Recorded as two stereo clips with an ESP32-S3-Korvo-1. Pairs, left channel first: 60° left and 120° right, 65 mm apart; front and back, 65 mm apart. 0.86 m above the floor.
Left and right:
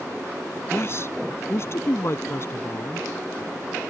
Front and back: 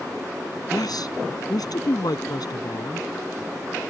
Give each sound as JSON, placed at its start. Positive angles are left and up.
{"t": 0.7, "sound": "a man speaking", "azimuth_deg": 10}